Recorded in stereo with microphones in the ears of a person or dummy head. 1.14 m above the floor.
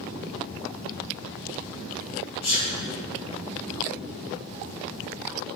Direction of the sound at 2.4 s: 50° left (ahead or behind).